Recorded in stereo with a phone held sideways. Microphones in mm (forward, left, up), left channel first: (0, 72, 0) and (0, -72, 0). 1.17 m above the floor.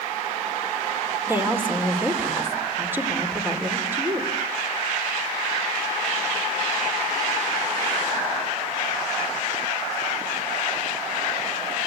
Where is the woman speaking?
15° right (ahead or behind), 4 m.